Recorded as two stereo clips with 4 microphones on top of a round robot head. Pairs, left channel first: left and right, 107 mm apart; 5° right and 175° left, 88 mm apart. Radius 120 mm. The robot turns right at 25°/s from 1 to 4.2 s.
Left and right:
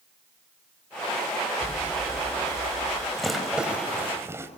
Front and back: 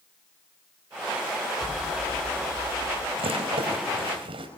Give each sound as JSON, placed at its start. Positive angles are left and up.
{"t": 1.6, "sound": "an explosion", "azimuth_deg": -150, "distance_m": 7.0}
{"t": 3.2, "sound": "a rattle", "azimuth_deg": 180, "distance_m": 4.5}